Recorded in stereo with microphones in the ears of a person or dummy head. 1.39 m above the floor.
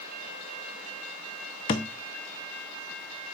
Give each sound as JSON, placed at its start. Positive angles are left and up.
{"t": 1.7, "sound": "a thud", "side_deg": 30, "distance_m": 0.8}